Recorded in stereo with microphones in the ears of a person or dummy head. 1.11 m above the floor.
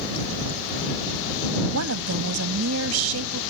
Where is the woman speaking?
85° right.